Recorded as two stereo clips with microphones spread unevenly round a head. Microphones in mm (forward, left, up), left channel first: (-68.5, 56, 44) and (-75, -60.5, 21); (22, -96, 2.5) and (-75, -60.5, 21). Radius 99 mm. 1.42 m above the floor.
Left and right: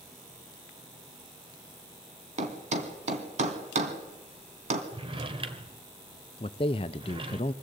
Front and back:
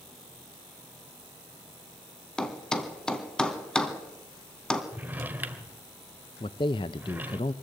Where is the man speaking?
30° left, 0.5 m.